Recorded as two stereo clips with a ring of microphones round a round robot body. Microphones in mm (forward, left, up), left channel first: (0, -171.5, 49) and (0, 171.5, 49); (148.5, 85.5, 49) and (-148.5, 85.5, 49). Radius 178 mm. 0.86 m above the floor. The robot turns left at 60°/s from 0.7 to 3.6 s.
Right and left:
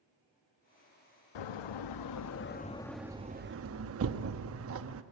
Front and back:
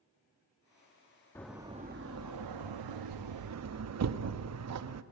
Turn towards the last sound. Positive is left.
turn(degrees=140)